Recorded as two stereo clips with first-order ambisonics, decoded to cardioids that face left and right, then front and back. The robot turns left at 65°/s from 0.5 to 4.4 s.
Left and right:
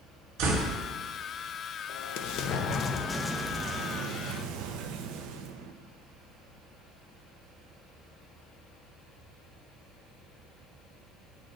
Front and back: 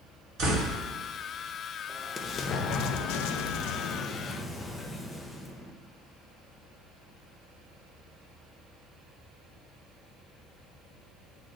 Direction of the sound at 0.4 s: 130° right.